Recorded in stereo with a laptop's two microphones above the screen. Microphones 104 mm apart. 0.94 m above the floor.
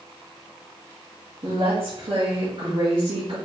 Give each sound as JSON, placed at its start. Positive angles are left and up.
{"t": 1.4, "sound": "a woman speaking", "side_deg": -60, "distance_m": 1.7}